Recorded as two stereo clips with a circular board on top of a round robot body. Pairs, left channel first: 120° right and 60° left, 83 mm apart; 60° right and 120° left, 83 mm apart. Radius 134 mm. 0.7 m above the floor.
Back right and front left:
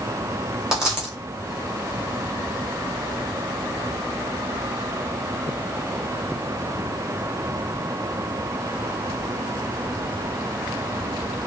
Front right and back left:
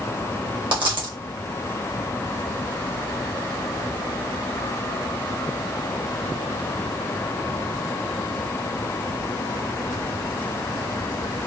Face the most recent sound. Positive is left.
turn(degrees=140)